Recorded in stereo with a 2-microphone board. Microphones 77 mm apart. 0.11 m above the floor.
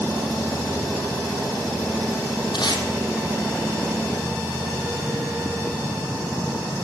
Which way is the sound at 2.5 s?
75° left (ahead or behind).